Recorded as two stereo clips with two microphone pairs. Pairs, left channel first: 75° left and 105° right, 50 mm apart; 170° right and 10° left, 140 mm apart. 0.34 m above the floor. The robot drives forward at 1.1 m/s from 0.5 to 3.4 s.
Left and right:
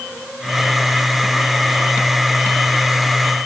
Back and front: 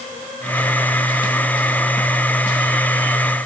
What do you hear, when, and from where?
Only background noise.